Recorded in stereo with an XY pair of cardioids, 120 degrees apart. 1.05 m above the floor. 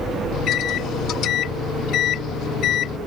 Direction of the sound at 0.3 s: 65° left.